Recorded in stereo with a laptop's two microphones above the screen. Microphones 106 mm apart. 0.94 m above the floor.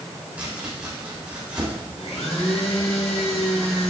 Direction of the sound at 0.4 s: 15° right (ahead or behind).